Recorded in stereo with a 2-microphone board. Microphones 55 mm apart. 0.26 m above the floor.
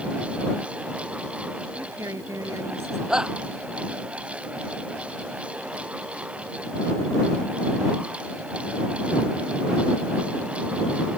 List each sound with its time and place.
1.8 s a woman speaking: 70° right (ahead or behind); by 3.0 s 60° right (ahead or behind)
3.1 s a shout: 15° right (ahead or behind)